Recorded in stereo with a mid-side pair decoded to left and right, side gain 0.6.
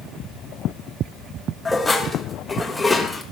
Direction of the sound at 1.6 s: 10° left.